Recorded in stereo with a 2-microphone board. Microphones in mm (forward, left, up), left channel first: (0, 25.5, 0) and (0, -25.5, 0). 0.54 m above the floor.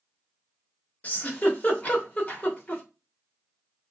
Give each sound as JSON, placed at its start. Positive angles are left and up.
{"t": 1.0, "sound": "a giggle", "side_deg": 30, "distance_m": 1.1}